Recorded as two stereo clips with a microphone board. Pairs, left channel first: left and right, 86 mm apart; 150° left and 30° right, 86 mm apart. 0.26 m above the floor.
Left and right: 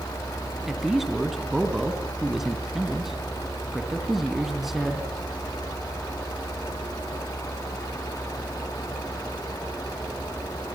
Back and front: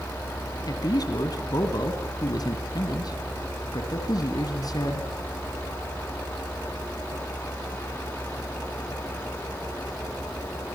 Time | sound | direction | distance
0.7 | a man speaking | 175° right | 2.5 m